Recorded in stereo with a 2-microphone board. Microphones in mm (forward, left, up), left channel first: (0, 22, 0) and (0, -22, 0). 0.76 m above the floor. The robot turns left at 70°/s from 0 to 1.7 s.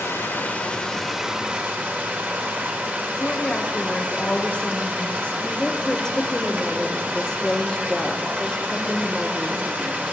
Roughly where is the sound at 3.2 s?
Left.